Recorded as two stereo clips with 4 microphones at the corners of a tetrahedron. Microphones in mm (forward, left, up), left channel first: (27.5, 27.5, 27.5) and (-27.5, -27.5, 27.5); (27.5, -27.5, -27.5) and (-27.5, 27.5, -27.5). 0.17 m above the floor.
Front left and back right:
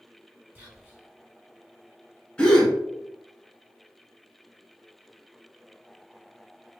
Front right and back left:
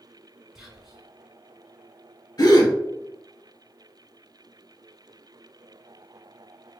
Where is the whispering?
150° right, 1.3 m.